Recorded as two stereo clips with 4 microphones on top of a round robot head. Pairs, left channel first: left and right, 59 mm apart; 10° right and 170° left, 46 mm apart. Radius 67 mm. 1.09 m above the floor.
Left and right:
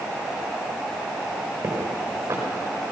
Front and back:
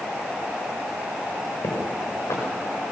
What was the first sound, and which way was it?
Footsteps, 40° right.